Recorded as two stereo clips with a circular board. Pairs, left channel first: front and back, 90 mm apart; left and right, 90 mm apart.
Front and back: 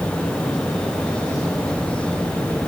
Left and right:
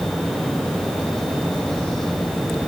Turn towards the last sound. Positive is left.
No sound to turn to.